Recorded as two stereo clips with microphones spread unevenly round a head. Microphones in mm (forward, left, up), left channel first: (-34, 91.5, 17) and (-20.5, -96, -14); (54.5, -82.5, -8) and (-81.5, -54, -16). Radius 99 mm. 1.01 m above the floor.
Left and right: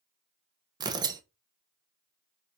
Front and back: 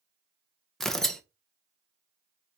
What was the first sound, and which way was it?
Tearing paper, 100° right.